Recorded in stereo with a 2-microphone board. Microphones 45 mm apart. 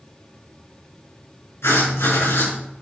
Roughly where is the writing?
Left.